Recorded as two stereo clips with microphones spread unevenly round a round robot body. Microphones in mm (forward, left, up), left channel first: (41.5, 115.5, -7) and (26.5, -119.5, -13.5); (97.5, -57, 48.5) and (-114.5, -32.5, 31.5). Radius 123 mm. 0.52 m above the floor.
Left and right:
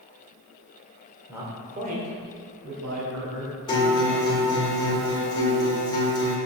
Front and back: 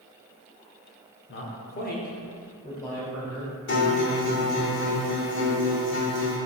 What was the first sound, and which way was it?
A man speaking, 15° right.